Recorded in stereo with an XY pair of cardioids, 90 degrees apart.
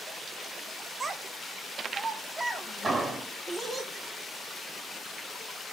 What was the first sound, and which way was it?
A child speaking, 40° right.